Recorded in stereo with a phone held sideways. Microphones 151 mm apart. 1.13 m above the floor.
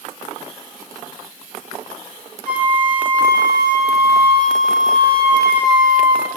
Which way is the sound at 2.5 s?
75° right (ahead or behind).